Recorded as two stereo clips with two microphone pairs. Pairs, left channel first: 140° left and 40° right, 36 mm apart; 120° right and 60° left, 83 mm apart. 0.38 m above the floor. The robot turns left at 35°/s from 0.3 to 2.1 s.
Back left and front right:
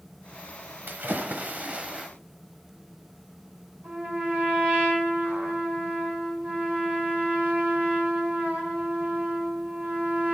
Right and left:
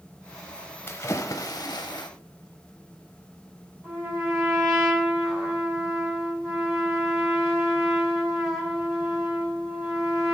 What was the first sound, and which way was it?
A splash, 60° right.